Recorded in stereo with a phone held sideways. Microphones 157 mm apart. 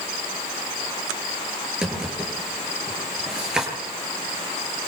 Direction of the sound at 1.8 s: 5° right (ahead or behind).